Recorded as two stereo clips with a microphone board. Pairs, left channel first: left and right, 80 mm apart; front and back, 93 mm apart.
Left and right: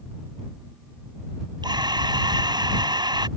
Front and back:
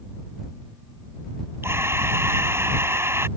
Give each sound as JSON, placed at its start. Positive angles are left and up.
{"t": 1.6, "sound": "breathing", "azimuth_deg": -115}